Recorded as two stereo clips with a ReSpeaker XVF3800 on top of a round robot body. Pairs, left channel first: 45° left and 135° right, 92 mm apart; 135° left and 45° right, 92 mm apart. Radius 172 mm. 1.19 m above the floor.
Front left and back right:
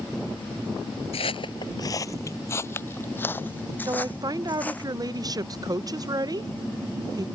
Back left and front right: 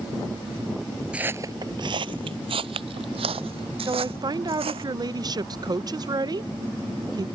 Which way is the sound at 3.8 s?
90° right.